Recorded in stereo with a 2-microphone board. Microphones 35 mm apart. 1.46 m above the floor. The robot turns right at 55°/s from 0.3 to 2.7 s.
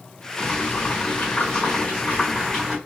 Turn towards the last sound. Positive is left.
turn(degrees=-175)